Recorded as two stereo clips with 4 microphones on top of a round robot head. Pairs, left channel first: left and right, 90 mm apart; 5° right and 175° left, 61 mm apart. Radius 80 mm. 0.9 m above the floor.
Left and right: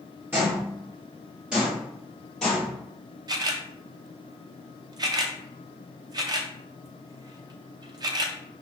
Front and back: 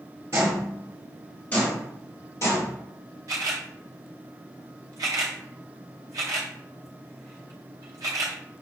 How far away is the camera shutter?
About 0.6 m.